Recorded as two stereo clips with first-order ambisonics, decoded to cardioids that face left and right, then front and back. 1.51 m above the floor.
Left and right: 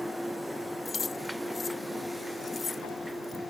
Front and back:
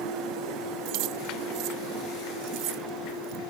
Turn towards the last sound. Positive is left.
turn(degrees=160)